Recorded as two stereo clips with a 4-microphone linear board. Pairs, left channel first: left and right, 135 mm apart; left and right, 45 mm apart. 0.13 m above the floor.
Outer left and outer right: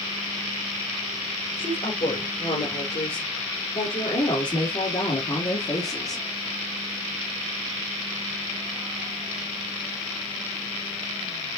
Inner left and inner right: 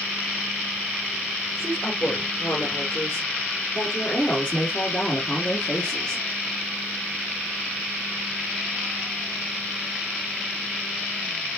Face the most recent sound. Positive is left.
turn(degrees=25)  # may be behind; listen again after turning